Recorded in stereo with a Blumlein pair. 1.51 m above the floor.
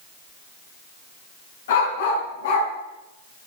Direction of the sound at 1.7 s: 60° left.